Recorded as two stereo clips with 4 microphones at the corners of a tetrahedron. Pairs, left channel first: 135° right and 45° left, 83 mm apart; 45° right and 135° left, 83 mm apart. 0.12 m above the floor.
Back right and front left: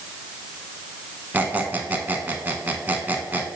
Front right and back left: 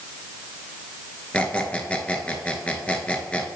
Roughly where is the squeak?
Ahead.